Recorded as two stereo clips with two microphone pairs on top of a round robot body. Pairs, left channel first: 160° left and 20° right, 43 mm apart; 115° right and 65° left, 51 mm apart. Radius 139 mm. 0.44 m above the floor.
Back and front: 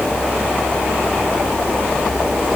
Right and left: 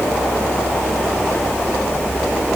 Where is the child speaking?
No child speaking in this recording.